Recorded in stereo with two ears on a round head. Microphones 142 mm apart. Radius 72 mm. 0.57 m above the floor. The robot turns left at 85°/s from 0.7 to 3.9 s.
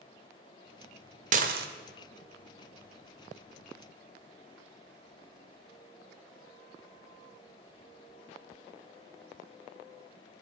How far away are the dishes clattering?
About 1.2 m.